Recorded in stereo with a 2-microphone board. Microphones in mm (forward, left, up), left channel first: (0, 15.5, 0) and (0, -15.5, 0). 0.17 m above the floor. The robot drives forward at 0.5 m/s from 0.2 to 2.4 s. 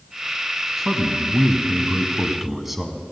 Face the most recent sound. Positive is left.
turn(degrees=-10)  # may be behind; listen again after turning